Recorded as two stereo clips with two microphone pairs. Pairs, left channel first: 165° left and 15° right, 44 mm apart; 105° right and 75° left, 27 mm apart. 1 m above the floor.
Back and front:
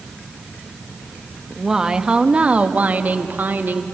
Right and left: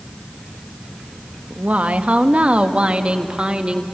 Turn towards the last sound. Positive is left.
turn(degrees=25)